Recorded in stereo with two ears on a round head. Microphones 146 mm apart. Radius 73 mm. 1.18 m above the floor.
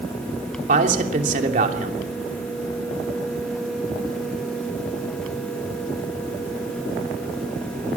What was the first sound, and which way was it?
A man speaking, 55° right (ahead or behind).